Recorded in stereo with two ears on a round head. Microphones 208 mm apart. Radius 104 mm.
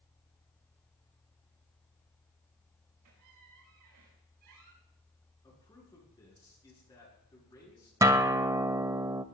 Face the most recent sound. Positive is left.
turn(degrees=-10)  # may be behind; listen again after turning